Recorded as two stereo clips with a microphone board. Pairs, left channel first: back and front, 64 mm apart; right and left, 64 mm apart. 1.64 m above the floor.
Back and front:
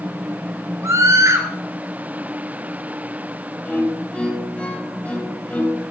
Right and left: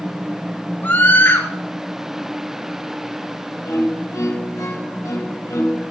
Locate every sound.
0.8 s a scream: 35° right, 4.5 m
3.6 s a violin: 115° right, 4 m